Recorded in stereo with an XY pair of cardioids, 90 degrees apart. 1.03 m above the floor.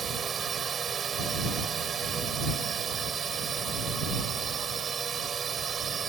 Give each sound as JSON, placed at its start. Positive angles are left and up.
{"t": 0.0, "sound": "a drone", "azimuth_deg": -55}